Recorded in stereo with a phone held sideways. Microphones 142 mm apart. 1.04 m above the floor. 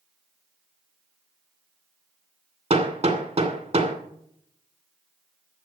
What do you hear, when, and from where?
2.7 s hammering: 50° right (ahead or behind), 2.5 m